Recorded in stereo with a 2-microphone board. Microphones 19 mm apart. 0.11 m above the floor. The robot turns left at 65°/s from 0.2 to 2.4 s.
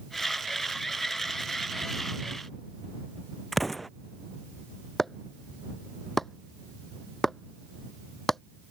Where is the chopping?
15° left (ahead or behind).